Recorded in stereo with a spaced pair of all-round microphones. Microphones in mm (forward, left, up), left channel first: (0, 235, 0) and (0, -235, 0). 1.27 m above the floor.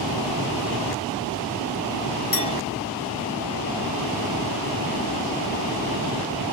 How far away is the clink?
About 1.2 m.